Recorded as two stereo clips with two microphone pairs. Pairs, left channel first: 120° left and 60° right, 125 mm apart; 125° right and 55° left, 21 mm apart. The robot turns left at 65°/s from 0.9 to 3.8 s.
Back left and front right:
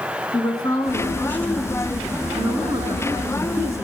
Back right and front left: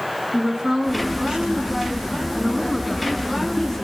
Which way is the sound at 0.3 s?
85° left.